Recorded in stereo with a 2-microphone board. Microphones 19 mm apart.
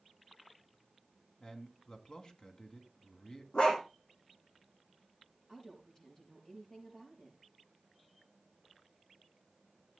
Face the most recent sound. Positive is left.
turn(degrees=50)  # may be behind; listen again after turning